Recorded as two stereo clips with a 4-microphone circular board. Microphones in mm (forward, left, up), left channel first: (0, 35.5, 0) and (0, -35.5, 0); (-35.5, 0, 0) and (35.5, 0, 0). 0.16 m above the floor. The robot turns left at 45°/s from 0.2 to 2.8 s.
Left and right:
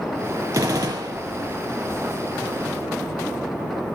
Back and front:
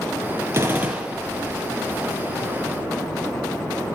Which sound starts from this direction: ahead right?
A gunshot, at 0.5 s.